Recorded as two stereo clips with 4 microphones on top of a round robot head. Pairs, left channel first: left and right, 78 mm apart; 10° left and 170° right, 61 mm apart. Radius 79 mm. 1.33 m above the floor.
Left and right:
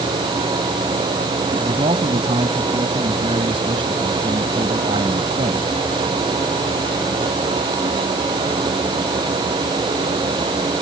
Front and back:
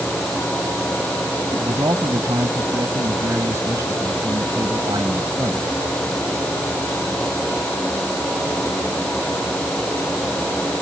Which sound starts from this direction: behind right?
A man speaking, at 1.5 s.